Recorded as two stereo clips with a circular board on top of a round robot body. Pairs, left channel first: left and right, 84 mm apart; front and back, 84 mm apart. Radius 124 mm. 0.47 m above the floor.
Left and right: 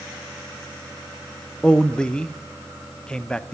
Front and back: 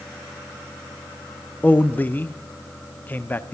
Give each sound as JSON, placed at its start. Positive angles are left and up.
{"t": 1.6, "sound": "a man speaking", "azimuth_deg": 25, "distance_m": 0.8}